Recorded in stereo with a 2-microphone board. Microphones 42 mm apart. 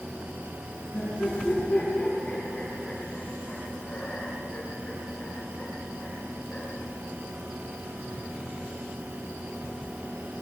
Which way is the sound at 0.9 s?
25° left (ahead or behind).